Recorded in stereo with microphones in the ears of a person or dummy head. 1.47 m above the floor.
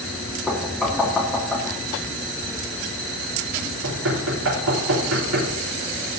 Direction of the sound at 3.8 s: 85° right.